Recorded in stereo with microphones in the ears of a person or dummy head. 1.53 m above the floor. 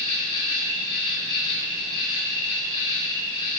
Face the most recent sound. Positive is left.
turn(degrees=30)  # may be behind; listen again after turning